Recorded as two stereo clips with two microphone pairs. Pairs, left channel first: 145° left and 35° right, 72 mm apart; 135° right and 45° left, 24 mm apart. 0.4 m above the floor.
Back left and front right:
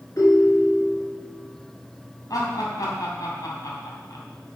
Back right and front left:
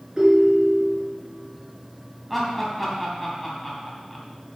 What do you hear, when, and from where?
0.2 s a ringtone: 105° left, 3.5 m
2.3 s laughter: 130° left, 3.5 m